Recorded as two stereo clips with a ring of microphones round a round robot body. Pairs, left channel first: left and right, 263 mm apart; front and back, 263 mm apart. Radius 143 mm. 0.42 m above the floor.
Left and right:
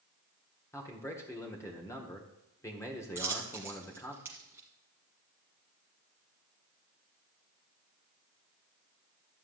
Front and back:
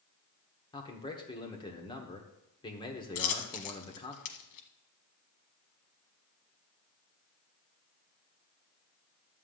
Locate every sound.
0.7 s a man speaking: 30° left, 1.2 m
3.1 s a dropped coin: 5° right, 1.1 m